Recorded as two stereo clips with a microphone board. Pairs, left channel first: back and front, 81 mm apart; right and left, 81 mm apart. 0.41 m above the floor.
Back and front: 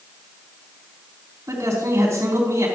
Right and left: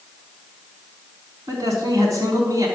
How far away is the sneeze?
I don't hear a sneeze.